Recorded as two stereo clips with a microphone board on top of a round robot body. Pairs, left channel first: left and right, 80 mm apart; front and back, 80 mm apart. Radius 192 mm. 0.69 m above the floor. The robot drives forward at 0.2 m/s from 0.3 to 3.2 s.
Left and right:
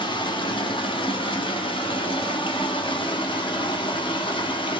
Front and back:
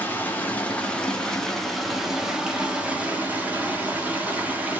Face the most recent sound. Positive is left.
turn(degrees=105)